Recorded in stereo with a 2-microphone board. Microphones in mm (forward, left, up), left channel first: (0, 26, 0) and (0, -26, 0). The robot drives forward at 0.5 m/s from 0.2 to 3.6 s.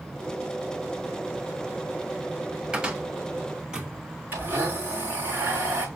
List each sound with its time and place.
2.7 s a cupboard door: 15° right (ahead or behind), 1.4 m
4.3 s a blender: 35° right (ahead or behind), 5 m